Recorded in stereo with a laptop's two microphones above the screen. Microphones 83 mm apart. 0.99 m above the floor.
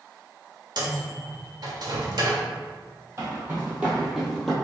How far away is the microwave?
About 0.9 m.